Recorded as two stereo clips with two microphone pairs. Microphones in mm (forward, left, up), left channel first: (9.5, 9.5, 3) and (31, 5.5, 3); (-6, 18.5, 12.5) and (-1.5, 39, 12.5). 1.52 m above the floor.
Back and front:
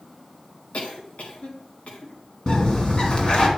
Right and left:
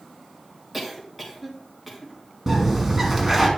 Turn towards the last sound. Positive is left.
turn(degrees=155)